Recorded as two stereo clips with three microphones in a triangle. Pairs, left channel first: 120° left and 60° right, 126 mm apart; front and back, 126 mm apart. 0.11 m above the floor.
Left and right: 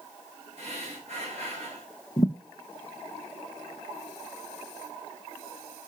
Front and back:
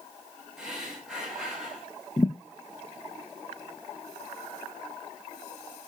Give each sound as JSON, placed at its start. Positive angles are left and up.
{"t": 0.6, "sound": "breathing", "azimuth_deg": -95, "distance_m": 3.5}
{"t": 2.2, "sound": "a thud", "azimuth_deg": 55, "distance_m": 1.2}